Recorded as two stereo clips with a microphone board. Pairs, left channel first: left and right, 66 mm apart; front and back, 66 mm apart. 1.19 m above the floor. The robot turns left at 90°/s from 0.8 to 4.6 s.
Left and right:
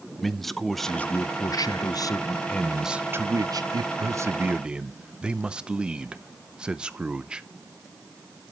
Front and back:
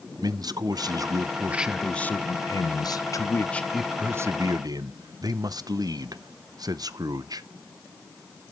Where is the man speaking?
175° left, 0.6 m; by 7.4 s 165° right, 0.6 m.